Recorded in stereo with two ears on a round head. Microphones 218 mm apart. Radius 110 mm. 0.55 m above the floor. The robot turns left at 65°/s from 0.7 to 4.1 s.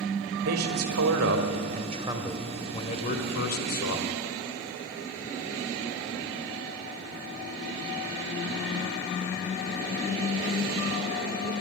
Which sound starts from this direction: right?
A man speaking, at 0.4 s.